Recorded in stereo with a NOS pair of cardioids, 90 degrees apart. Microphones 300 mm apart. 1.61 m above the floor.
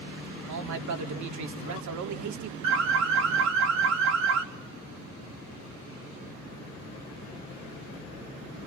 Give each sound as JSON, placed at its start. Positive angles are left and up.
{"t": 0.5, "sound": "a man speaking", "azimuth_deg": -65, "distance_m": 4.0}
{"t": 2.6, "sound": "an alarm", "azimuth_deg": -60, "distance_m": 4.0}